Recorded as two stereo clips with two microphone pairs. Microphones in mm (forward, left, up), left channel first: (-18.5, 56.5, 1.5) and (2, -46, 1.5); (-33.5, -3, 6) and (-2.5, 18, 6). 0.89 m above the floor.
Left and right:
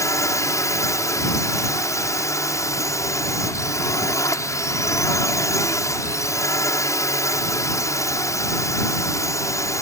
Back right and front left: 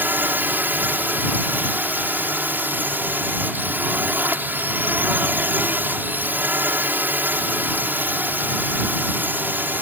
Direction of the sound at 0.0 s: 45° left.